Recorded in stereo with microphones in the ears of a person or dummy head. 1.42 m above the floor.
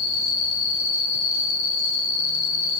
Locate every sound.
0.0 s an insect: 65° left (ahead or behind), 3.5 m